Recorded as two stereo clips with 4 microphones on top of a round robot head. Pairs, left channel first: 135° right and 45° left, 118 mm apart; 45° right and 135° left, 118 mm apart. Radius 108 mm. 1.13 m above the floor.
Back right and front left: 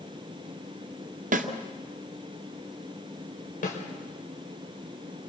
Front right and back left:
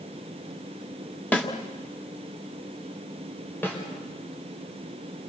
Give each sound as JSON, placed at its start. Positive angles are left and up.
{"t": 1.3, "sound": "a snare drum", "azimuth_deg": 30, "distance_m": 2.0}
{"t": 3.6, "sound": "a snare drum", "azimuth_deg": -120, "distance_m": 6.0}